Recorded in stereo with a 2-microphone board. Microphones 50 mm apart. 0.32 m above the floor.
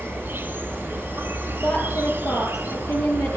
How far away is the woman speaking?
About 8.5 m.